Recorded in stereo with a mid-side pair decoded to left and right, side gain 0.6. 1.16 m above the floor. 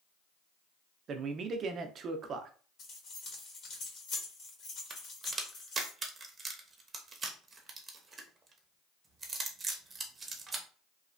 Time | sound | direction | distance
1.1 | a man speaking | 45° right | 0.6 m
2.8 | keys jangling | 50° left | 1.8 m
4.9 | a crack | 30° right | 0.8 m